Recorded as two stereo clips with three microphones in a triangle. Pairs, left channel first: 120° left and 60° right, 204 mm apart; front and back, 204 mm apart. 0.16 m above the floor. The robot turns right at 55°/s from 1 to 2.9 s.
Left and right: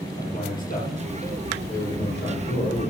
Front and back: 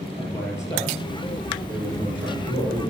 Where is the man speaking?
75° left, 4 m; by 2.9 s straight behind, 4 m.